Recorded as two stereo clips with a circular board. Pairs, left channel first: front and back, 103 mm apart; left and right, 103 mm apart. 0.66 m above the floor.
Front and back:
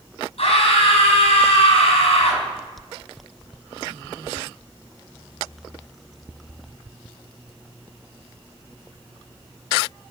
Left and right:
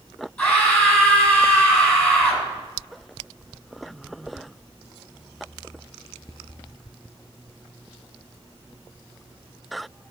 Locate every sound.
0.4 s a scream: 20° left, 5.5 m